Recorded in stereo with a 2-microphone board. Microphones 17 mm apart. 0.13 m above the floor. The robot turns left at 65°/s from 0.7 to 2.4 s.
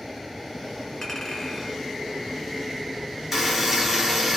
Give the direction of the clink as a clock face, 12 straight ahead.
10 o'clock.